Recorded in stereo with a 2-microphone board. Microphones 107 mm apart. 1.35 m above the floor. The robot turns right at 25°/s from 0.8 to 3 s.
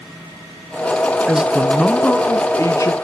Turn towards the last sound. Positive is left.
turn(degrees=35)